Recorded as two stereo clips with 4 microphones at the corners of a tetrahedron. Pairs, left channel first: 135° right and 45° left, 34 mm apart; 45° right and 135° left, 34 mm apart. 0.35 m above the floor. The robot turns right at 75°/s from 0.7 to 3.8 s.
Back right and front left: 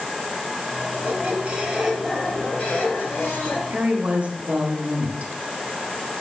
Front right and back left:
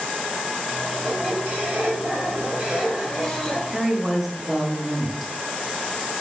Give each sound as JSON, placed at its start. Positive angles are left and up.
{"t": 0.9, "sound": "a squeak", "azimuth_deg": 50, "distance_m": 2.5}
{"t": 3.7, "sound": "a woman speaking", "azimuth_deg": 45, "distance_m": 1.2}